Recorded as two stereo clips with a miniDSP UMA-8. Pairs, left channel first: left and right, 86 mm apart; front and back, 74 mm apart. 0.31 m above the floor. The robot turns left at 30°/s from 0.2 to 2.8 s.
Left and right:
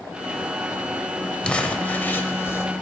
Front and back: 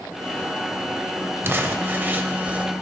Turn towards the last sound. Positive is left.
turn(degrees=115)